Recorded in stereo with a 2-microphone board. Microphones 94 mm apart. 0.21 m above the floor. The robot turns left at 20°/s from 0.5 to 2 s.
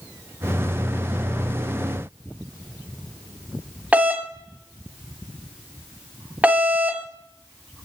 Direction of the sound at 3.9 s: 15° right (ahead or behind).